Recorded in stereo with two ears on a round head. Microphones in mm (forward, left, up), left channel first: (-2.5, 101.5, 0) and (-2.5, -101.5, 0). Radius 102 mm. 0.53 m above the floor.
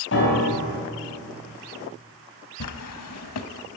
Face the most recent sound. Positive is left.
turn(degrees=75)  # may be behind; listen again after turning